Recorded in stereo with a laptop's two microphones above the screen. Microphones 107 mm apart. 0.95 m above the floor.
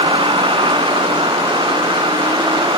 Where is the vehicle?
50° right (ahead or behind); by 2.8 s 45° right (ahead or behind).